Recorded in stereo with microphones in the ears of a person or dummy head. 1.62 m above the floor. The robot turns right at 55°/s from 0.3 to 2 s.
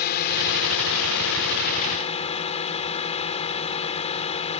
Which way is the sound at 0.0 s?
55° left.